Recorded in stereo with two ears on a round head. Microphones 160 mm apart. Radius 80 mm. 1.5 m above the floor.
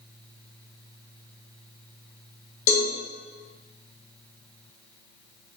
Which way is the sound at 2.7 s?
40° left (ahead or behind).